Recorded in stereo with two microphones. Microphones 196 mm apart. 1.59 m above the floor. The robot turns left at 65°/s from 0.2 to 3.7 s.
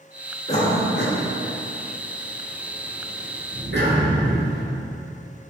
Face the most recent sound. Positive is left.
turn(degrees=-60)  # may be behind; listen again after turning